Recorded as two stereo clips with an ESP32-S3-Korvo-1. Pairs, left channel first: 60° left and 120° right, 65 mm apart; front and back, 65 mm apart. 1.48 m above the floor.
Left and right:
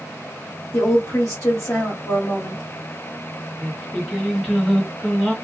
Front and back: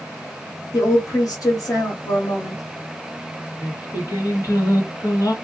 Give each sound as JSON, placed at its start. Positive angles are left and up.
{"t": 0.7, "sound": "a woman speaking", "azimuth_deg": 15, "distance_m": 1.3}
{"t": 3.6, "sound": "singing", "azimuth_deg": -25, "distance_m": 1.1}